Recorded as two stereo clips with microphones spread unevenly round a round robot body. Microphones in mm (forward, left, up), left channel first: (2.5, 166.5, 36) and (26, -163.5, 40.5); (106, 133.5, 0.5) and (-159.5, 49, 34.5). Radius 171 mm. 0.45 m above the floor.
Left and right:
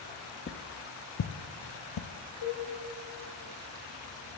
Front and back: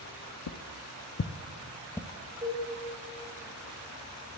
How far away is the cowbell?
About 3.5 m.